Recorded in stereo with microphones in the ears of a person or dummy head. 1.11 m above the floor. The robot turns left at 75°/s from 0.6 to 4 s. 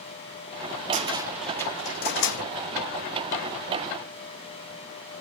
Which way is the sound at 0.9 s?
40° right (ahead or behind).